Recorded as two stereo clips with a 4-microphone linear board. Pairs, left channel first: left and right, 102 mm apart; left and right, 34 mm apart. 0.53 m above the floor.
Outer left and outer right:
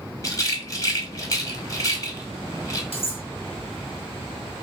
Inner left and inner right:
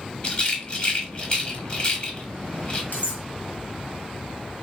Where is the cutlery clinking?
70° left (ahead or behind), 1.9 m.